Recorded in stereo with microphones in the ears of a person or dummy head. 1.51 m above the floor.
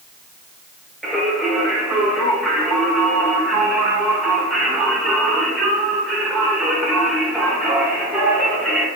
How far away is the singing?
About 1.0 m.